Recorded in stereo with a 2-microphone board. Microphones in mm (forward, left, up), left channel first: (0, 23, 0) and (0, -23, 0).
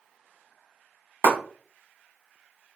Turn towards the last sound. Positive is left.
turn(degrees=-60)  # may be behind; listen again after turning